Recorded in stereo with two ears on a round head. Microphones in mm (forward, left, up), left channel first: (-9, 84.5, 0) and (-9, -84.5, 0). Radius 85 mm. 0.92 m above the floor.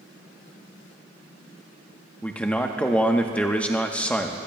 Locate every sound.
2.2 s a man speaking: 5° left (ahead or behind), 0.9 m